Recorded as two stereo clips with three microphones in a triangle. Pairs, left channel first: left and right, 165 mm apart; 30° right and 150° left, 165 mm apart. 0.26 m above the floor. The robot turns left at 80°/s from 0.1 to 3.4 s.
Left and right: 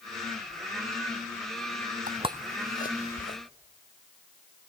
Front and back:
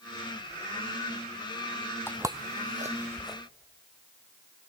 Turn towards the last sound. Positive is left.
turn(degrees=50)